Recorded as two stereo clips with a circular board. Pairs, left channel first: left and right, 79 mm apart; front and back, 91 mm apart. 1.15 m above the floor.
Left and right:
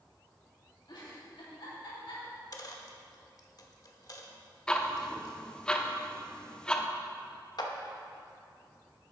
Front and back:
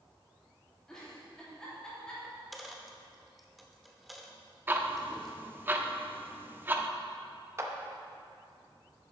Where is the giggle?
80° left, 3 m.